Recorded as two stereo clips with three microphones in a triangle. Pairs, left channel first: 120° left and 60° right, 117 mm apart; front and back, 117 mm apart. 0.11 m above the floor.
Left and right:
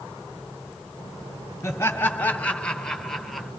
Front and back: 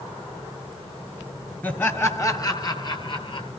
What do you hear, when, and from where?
1.6 s laughter: 65° left, 1.5 m; by 3.5 s 30° left, 2 m